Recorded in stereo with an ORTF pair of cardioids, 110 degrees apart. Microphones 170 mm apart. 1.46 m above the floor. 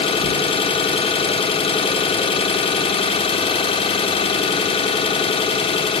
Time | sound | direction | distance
0.0 | an engine running | 30° left | 0.9 m